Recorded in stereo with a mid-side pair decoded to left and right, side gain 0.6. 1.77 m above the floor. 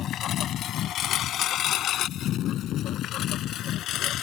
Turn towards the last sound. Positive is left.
turn(degrees=60)